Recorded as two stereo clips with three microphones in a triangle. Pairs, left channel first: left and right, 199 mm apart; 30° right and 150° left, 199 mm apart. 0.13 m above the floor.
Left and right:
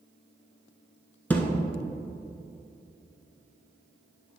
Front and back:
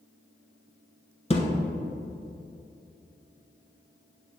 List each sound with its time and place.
1.3 s a thud: 10° left, 0.9 m